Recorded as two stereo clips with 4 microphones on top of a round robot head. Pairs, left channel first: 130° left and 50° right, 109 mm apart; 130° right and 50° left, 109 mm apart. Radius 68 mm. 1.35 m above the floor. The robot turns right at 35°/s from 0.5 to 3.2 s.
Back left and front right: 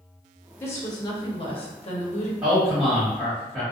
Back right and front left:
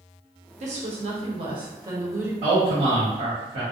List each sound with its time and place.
0.6 s a woman speaking: 60° left, 0.8 m; by 2.3 s 120° left, 0.8 m
2.4 s a man speaking: 10° left, 1.1 m; by 3.6 s 40° left, 1.1 m